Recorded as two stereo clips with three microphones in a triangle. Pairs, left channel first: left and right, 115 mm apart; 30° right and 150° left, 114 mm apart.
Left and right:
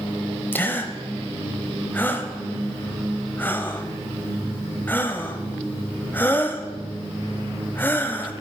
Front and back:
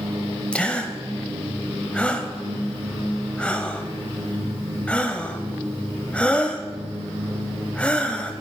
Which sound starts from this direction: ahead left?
A gasp, at 0.5 s.